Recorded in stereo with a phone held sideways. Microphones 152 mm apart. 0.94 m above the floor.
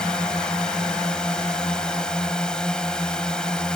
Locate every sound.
0.0 s a drone: 5° left (ahead or behind)